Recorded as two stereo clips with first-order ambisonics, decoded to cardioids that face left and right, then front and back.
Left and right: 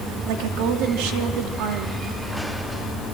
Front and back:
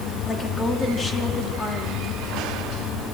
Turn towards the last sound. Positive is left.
turn(degrees=-75)